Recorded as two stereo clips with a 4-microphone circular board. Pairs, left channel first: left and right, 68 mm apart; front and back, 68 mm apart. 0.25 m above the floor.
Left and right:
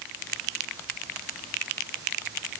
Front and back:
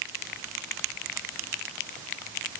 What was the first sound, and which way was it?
Only background noise.